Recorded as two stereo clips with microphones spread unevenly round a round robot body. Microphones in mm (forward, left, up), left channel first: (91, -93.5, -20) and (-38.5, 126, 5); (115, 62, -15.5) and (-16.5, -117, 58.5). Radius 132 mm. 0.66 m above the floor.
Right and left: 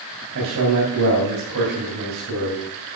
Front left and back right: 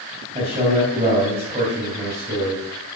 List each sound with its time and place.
0.3 s a man speaking: 160° left, 3.5 m